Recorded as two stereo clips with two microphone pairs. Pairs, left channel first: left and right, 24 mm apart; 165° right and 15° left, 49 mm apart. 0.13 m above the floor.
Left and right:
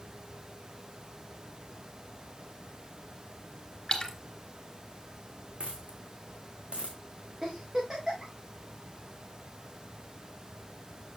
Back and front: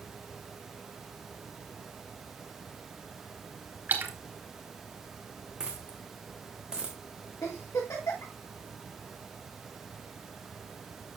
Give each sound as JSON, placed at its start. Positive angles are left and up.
{"t": 3.9, "sound": "a splash", "azimuth_deg": 40, "distance_m": 2.0}
{"t": 5.6, "sound": "a dropped coin", "azimuth_deg": -60, "distance_m": 2.0}
{"t": 7.4, "sound": "a giggle", "azimuth_deg": -155, "distance_m": 5.5}